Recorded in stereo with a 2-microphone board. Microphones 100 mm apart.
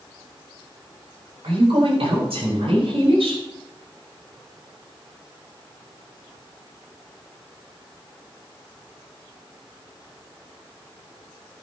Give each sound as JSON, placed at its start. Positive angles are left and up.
{"t": 1.4, "sound": "a woman speaking", "side_deg": -80, "distance_m": 7.0}